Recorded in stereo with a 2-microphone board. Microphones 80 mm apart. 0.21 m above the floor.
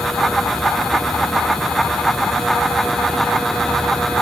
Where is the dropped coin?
No dropped coin in this recording.